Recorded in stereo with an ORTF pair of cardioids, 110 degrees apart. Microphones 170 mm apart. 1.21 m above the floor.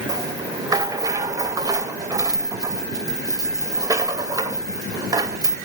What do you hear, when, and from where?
0.1 s a rattle: 20° right, 2.5 m